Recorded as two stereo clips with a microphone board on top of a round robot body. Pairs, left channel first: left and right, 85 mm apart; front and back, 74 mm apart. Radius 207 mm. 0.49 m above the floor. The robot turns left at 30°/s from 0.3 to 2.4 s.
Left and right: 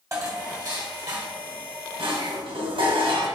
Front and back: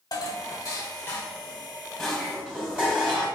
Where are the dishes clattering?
35° right, 1.8 m; by 3.3 s 100° right, 1.8 m.